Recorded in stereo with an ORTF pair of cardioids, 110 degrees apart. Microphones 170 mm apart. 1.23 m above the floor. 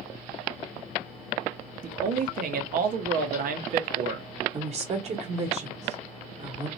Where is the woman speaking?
40° right, 1.1 m.